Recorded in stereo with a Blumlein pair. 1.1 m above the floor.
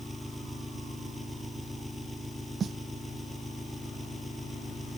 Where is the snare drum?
20° right.